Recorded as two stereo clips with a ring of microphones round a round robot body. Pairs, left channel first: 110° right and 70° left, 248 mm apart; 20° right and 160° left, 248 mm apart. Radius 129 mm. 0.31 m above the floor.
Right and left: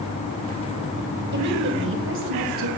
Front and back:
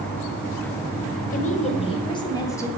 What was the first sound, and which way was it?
A woman speaking, 30° left.